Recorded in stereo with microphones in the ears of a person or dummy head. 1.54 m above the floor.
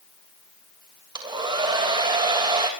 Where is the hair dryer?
25° right (ahead or behind), 3 m.